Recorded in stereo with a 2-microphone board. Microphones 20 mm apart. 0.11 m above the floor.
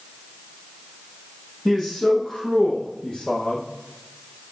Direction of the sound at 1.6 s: 5° left (ahead or behind).